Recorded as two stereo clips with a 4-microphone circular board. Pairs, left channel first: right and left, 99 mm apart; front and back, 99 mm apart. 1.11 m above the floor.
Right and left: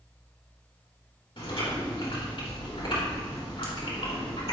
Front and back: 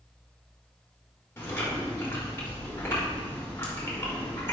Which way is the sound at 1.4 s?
65° right.